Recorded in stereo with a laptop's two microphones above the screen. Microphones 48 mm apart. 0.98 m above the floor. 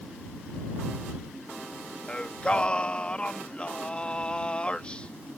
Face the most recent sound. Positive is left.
turn(degrees=25)  # may be behind; listen again after turning